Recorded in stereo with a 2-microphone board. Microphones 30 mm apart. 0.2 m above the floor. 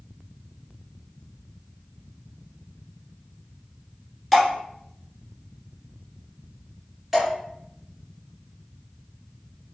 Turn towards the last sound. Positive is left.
turn(degrees=-10)  # may be behind; listen again after turning